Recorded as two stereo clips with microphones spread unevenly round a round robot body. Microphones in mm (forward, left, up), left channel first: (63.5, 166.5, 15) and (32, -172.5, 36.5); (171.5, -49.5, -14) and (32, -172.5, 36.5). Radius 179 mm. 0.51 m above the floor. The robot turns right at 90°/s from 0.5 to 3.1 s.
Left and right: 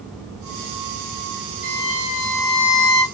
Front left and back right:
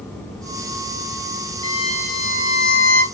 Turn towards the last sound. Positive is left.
turn(degrees=60)